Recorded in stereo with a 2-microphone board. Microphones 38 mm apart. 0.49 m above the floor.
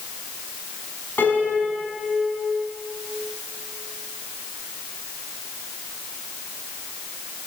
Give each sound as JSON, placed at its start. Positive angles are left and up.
{"t": 1.2, "sound": "a piano", "side_deg": 65, "distance_m": 5.5}